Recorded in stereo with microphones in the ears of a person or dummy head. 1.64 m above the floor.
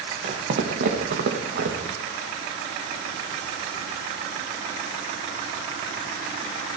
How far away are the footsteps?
About 3.5 m.